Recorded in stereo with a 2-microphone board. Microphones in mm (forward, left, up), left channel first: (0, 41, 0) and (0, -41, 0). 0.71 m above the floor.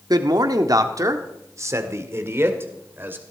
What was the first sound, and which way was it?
A man speaking, 60° right (ahead or behind).